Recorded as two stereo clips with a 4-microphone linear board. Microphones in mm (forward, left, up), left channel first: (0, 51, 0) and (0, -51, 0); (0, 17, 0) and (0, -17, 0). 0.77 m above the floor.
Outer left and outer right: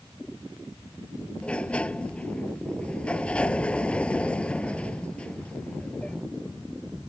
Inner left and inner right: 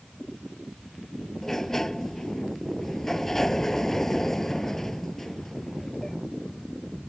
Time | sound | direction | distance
1.4 | a sliding door | 10° left (ahead or behind) | ?